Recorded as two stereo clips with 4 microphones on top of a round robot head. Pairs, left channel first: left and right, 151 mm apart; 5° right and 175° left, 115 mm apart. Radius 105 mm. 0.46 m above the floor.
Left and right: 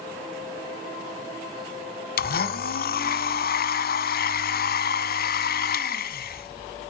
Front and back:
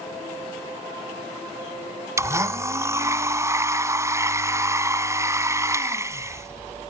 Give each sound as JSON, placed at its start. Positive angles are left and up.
{"t": 2.2, "sound": "a blender", "azimuth_deg": 110, "distance_m": 1.4}